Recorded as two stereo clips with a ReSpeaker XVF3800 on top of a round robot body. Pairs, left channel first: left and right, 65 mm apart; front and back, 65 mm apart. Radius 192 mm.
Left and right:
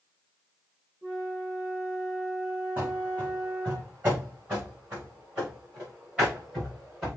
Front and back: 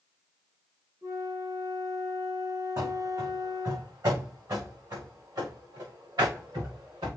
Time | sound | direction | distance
1.0 | a flute | 145° right | 5 m
2.8 | running footsteps | 155° right | 4 m